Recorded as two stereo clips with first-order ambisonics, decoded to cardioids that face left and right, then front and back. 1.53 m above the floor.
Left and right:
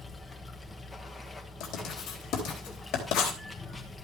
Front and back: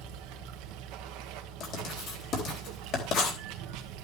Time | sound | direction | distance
0.0 | running water | 165° left | 1.2 m
1.6 | writing | 45° left | 3.5 m